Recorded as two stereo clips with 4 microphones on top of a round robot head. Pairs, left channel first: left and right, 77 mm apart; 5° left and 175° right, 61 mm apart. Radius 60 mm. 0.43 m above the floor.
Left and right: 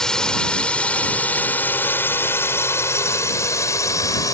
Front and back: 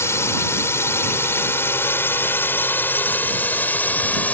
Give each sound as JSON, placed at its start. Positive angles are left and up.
{"t": 0.0, "sound": "a drone", "azimuth_deg": 10}